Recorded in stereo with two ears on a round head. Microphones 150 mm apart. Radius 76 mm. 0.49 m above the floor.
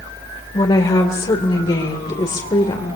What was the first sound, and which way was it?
A woman speaking, 25° left (ahead or behind).